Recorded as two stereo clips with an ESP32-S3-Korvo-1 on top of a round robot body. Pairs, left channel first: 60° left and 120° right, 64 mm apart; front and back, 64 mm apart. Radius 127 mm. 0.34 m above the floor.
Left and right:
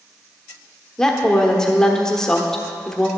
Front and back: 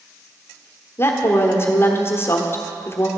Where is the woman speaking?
15° right, 1.2 m.